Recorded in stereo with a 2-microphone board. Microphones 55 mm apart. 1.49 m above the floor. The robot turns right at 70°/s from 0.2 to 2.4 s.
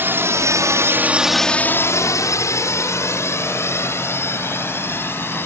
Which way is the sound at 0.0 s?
45° right (ahead or behind).